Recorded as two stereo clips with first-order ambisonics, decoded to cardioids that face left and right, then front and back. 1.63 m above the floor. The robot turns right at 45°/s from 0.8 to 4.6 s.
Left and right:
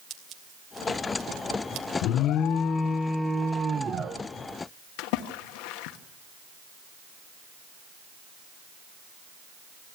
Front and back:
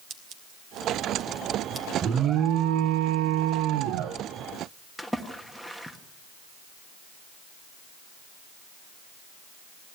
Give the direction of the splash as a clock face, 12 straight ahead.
9 o'clock.